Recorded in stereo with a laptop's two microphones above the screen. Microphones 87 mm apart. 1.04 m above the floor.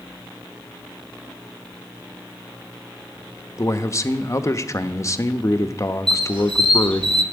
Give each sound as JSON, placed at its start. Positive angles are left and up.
{"t": 3.6, "sound": "a man speaking", "side_deg": 35, "distance_m": 1.1}
{"t": 6.1, "sound": "a squeak", "side_deg": -70, "distance_m": 1.6}